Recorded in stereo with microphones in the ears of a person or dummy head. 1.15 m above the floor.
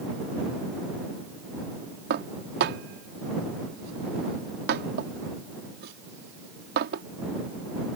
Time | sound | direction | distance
2.1 | dishes clattering | 50° right (ahead or behind) | ?